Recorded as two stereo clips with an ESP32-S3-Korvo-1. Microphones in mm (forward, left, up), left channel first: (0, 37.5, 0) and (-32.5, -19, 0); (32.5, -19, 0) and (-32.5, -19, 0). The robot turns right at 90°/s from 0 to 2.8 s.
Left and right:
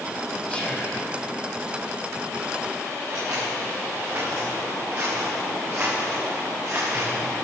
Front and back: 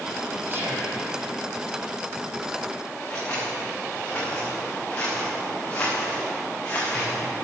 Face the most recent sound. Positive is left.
turn(degrees=-70)